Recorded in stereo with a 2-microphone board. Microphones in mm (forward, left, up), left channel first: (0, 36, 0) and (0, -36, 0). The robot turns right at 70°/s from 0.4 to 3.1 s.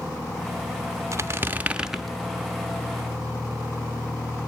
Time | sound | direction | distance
1.1 | a squeak | 65° right | 0.6 m